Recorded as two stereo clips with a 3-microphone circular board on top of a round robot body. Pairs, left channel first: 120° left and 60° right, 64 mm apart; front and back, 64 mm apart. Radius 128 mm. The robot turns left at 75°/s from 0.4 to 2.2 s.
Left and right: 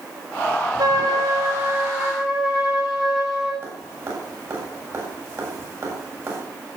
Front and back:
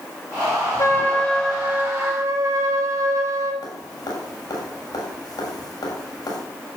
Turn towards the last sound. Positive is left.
turn(degrees=-10)